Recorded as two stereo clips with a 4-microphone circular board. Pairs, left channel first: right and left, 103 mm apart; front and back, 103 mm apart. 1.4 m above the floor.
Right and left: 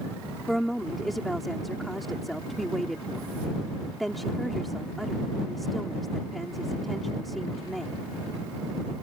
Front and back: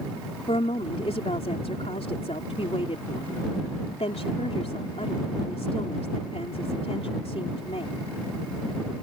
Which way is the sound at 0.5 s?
Straight ahead.